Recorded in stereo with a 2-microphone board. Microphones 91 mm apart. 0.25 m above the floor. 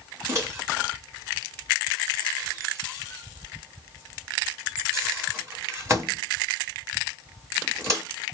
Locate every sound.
0.3 s a microwave: 30° right (ahead or behind), 1.7 m